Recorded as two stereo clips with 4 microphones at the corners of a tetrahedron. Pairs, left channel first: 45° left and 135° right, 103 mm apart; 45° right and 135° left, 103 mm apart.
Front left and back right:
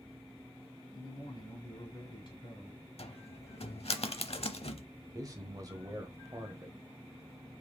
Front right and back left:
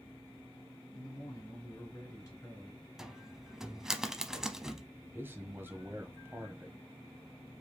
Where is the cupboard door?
50° left, 0.7 m.